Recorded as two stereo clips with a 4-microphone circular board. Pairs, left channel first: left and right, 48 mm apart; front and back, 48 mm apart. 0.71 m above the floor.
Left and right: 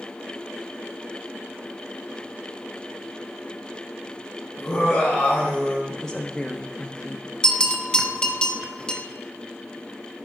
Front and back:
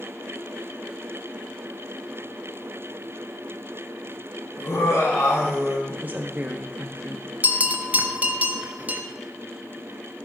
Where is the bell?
155° left, 0.8 m.